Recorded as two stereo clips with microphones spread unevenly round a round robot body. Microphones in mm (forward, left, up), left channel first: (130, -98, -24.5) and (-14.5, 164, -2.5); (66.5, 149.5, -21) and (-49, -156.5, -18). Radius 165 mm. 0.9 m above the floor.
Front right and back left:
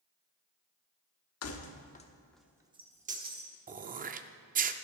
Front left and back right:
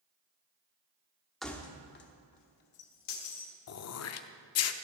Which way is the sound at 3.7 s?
75° left.